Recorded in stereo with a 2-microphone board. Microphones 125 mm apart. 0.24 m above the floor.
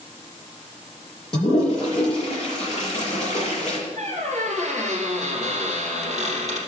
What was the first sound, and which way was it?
A toilet flushing, 45° left (ahead or behind).